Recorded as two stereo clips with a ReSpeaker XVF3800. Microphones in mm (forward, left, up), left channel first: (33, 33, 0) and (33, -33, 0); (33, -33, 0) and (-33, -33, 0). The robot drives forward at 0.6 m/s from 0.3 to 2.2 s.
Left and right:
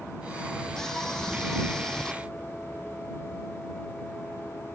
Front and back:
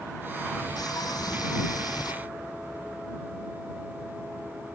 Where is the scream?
5° left.